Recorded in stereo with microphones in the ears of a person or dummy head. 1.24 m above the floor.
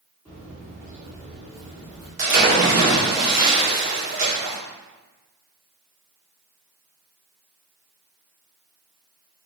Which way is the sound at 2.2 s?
50° right (ahead or behind).